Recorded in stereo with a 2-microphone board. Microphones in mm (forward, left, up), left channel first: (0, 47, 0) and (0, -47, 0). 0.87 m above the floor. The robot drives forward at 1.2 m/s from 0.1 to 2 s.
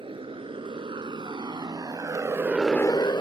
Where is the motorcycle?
70° right (ahead or behind); by 3.2 s 55° left (ahead or behind).